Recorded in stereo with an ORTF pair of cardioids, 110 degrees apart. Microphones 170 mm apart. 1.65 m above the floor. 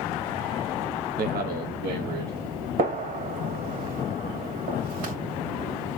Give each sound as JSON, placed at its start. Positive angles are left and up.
{"t": 1.2, "sound": "a man speaking", "azimuth_deg": -65, "distance_m": 0.7}
{"t": 2.8, "sound": "a gunshot", "azimuth_deg": -70, "distance_m": 1.9}